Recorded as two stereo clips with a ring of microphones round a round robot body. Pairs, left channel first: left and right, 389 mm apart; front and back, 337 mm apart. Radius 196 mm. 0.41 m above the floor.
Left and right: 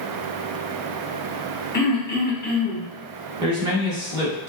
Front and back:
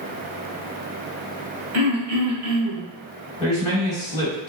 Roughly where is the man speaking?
Right.